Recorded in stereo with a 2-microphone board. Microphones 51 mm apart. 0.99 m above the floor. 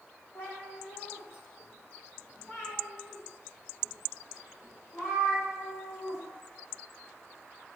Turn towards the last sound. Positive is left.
turn(degrees=85)